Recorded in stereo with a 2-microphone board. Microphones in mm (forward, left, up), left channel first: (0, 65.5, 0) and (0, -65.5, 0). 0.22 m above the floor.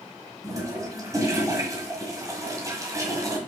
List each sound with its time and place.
0.4 s a toilet flushing: 25° right (ahead or behind), 1.6 m